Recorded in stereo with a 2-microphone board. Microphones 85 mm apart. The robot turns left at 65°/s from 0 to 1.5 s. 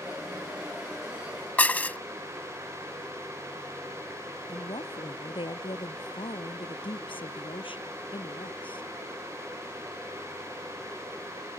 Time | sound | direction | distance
1.6 | dishes clattering | 20° left (ahead or behind) | ?
4.5 | a woman speaking | 80° left | ?